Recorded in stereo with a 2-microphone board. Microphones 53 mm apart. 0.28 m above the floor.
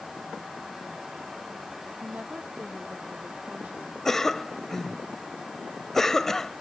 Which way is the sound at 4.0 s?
10° left (ahead or behind).